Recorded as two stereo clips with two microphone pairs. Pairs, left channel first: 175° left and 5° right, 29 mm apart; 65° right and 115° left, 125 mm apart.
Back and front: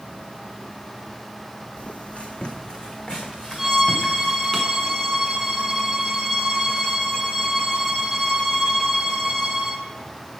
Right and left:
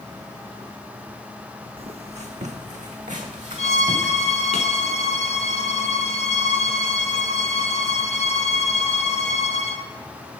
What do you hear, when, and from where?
1.8 s footsteps: 145° left, 0.7 m; by 4.6 s 95° left, 1.9 m
3.6 s a violin: 85° right, 0.8 m